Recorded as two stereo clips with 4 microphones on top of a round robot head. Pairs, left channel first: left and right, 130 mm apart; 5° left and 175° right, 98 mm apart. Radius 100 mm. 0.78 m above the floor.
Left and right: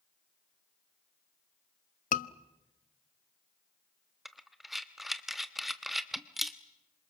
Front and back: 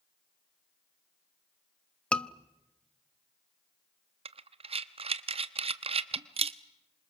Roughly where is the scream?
Left.